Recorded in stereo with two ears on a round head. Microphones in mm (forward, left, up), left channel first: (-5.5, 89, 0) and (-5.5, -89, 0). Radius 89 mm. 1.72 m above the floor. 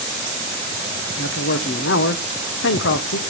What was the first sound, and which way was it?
A man speaking, 60° left (ahead or behind).